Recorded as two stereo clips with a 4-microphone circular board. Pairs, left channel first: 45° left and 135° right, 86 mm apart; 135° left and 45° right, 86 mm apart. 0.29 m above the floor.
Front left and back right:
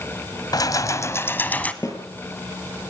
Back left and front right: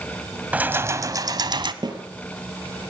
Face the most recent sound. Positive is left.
turn(degrees=-10)